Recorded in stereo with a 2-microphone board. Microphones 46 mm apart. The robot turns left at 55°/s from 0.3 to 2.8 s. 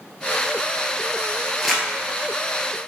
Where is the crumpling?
5° right (ahead or behind), 1.3 m; by 1.9 s 5° left (ahead or behind), 1.3 m.